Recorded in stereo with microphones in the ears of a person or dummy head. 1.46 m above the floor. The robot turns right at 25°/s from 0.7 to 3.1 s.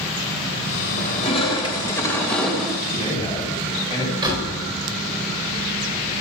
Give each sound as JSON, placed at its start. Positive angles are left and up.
{"t": 1.0, "sound": "crushing", "azimuth_deg": 130, "distance_m": 2.5}
{"t": 2.9, "sound": "a man speaking", "side_deg": 20, "distance_m": 7.0}
{"t": 4.2, "sound": "a door slam", "side_deg": -25, "distance_m": 4.5}